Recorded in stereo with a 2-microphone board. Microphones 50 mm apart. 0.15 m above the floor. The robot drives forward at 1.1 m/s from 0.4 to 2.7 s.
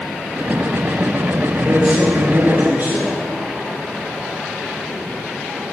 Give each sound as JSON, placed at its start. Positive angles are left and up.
{"t": 1.5, "sound": "a man speaking", "side_deg": -30, "distance_m": 3.0}